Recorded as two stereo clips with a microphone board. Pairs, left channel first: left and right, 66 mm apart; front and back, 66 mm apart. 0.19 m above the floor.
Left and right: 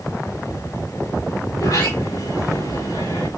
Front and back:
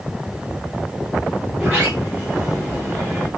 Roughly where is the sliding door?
Left.